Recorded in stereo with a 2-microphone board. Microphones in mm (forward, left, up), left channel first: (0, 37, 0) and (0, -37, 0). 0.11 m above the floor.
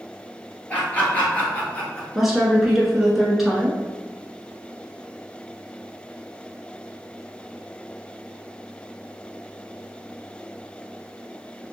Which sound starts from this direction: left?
Laughter, at 0.7 s.